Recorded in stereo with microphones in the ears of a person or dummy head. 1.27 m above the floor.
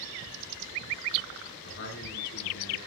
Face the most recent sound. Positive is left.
turn(degrees=65)  # may be behind; listen again after turning